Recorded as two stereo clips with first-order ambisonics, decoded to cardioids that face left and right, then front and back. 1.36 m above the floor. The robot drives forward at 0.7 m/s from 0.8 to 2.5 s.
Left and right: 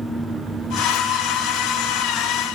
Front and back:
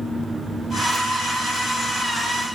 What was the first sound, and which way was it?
Only background noise.